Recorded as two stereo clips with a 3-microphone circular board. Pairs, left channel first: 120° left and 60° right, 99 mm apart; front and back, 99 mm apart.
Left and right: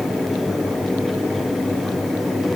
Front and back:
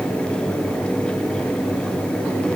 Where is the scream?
I don't hear a scream.